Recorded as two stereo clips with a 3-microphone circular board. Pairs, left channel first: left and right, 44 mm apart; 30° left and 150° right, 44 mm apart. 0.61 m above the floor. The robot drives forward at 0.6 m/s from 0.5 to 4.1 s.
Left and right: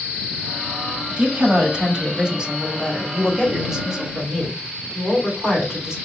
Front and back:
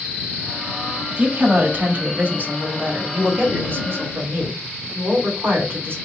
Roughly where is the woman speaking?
Behind right.